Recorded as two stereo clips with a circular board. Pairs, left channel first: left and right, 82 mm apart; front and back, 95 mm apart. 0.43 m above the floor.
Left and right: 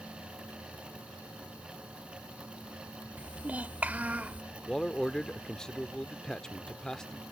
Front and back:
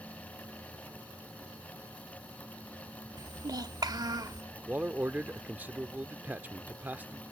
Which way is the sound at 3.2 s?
155° right.